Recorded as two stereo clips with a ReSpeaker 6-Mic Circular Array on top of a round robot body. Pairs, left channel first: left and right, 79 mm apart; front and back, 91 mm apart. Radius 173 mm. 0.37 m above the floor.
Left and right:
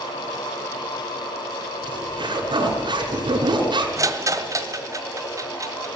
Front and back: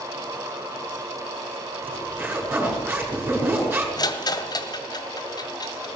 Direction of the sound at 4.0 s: 45° right.